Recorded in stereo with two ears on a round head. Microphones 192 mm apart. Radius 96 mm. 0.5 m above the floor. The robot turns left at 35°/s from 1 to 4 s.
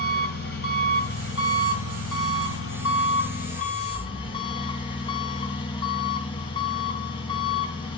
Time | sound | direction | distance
0.0 | an engine running | 130° left | 3 m